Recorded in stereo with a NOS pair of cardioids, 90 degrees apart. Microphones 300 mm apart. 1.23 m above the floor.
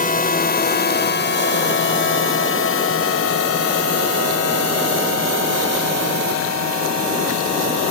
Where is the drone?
25° left; by 7.9 s 65° left.